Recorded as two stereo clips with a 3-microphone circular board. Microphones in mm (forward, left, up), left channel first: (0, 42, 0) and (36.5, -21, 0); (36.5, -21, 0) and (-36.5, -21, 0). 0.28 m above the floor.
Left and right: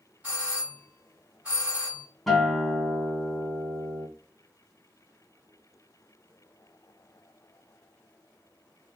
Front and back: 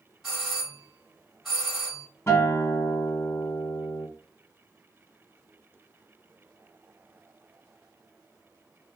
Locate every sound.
0.2 s a doorbell: 90° right, 1.8 m
2.3 s a guitar: 35° left, 0.9 m